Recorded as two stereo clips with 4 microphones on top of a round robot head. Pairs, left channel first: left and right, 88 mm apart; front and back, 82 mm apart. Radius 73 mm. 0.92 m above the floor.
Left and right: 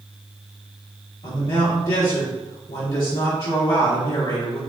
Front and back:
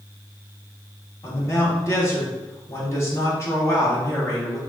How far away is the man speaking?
About 1.5 m.